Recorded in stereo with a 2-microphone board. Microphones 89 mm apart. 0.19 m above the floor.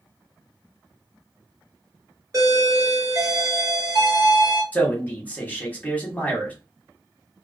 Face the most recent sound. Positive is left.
turn(degrees=20)  # may be behind; listen again after turning